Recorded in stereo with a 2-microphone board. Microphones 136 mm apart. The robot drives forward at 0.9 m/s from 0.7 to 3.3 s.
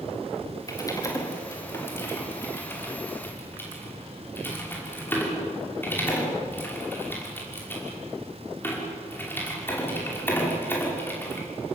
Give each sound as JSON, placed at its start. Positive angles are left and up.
{"t": 0.7, "sound": "typing on a keyboard", "side_deg": 25, "distance_m": 3.5}